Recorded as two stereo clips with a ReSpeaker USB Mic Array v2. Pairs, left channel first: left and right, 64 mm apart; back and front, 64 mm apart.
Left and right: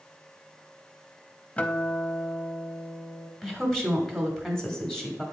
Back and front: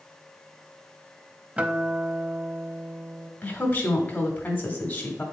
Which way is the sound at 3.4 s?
165° left.